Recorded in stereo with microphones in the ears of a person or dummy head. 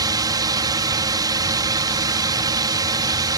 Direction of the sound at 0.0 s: 20° right (ahead or behind).